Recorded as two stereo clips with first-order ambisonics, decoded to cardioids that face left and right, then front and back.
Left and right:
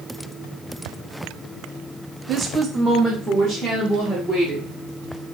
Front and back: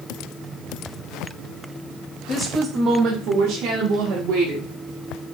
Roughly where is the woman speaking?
Ahead right.